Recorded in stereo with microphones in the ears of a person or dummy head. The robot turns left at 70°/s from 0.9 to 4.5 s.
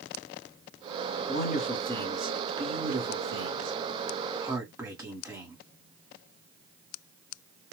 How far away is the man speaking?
About 1.5 m.